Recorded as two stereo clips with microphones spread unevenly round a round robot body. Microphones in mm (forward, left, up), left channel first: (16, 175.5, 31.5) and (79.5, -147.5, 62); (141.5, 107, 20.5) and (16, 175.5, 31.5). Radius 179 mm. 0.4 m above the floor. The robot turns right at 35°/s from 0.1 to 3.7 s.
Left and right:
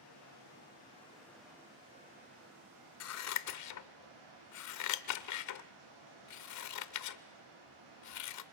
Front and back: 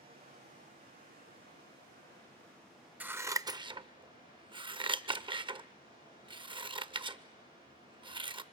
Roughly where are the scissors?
Left.